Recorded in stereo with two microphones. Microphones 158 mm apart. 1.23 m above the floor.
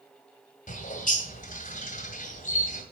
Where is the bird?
60° left (ahead or behind), 2 m.